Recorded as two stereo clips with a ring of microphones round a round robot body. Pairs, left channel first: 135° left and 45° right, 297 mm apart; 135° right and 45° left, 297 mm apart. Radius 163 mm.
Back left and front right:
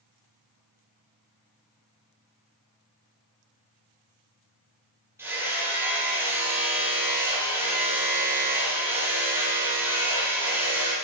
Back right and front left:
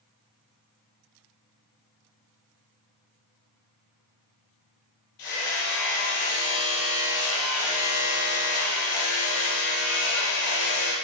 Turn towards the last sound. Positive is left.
turn(degrees=-130)